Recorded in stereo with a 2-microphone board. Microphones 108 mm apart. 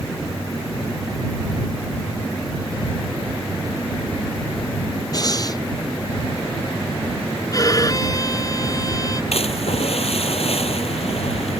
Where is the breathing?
35° left (ahead or behind).